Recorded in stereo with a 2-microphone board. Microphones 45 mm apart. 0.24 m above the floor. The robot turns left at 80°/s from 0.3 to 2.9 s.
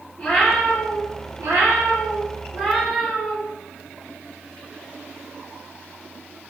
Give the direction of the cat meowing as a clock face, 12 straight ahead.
12 o'clock.